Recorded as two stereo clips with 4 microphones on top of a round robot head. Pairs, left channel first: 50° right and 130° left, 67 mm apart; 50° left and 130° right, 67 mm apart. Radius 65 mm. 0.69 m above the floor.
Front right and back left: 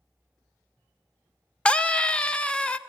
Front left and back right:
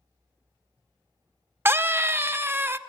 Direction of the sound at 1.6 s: 115° right.